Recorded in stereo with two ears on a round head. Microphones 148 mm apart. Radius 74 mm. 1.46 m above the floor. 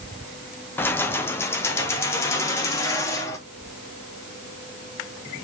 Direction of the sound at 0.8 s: 15° left (ahead or behind).